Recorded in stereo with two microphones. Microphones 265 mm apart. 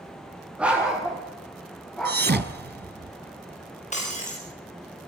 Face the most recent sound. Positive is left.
turn(degrees=25)  # may be behind; listen again after turning